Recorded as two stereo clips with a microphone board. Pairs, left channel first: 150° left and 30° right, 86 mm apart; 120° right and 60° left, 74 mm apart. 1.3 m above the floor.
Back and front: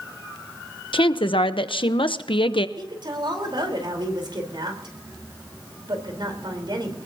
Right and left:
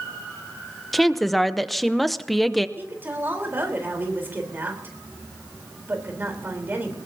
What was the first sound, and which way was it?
A woman speaking, 150° left.